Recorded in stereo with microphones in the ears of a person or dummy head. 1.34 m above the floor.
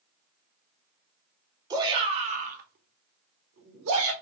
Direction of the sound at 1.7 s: 20° right (ahead or behind).